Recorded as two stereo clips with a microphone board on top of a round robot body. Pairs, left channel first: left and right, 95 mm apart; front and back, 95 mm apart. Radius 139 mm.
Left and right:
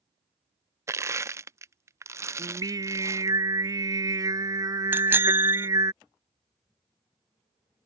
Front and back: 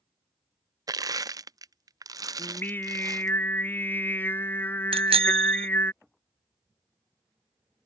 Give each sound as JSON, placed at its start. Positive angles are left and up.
{"t": 0.9, "sound": "crushing", "azimuth_deg": -140}
{"t": 2.4, "sound": "singing", "azimuth_deg": -60}
{"t": 4.9, "sound": "a bicycle bell", "azimuth_deg": -160}